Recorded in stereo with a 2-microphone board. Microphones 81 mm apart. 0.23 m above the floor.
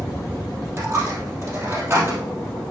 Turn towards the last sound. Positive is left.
turn(degrees=-35)  # may be behind; listen again after turning